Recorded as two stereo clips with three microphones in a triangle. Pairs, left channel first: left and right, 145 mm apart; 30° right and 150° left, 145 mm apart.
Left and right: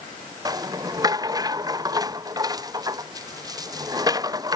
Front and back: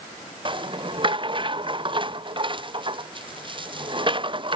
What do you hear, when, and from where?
0.5 s a rattle: 155° right